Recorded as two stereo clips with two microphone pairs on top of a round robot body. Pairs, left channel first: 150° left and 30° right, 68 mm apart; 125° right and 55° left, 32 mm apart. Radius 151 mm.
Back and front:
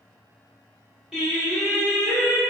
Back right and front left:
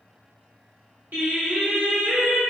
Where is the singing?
55° left, 1.4 m.